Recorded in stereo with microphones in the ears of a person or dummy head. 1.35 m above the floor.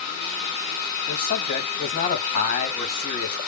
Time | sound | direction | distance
1.1 | a man speaking | 40° left (ahead or behind) | 1.9 m